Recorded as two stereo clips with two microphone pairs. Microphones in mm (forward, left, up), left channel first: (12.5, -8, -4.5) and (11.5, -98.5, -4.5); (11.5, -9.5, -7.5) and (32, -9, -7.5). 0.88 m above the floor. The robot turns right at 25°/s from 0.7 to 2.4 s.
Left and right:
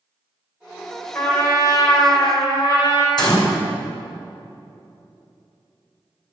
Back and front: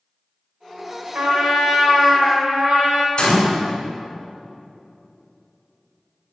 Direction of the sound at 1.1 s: 20° left.